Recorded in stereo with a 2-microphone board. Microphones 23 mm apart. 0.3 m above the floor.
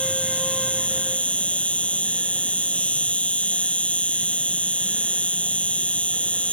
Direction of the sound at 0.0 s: 60° left (ahead or behind).